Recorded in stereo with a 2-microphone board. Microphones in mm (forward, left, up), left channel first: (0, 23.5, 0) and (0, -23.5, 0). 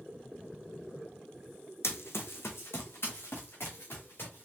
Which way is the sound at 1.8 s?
75° left (ahead or behind).